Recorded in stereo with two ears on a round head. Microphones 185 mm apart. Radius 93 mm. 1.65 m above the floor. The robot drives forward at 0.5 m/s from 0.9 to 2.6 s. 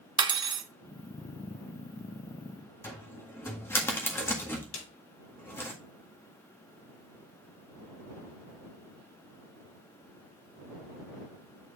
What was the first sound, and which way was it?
Cutlery clinking, 25° right (ahead or behind).